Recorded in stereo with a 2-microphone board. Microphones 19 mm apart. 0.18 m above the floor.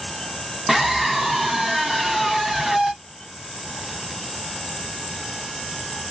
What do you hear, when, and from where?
0.7 s a scream: 10° right (ahead or behind), 1.0 m